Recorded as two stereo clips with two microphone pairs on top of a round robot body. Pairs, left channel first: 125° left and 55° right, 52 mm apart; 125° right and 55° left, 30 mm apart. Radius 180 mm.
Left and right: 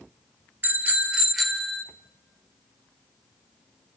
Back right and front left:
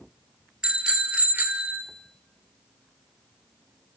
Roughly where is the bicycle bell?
Ahead.